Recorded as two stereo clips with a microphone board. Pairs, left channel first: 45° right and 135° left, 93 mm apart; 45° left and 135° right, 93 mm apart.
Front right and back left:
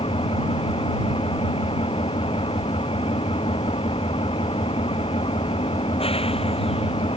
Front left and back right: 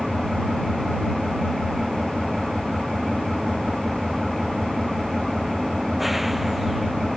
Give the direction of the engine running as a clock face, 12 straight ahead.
2 o'clock.